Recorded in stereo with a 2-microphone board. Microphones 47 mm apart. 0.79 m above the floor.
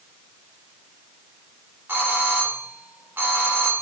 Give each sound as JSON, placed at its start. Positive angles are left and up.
{"t": 1.9, "sound": "a doorbell", "side_deg": -45, "distance_m": 3.0}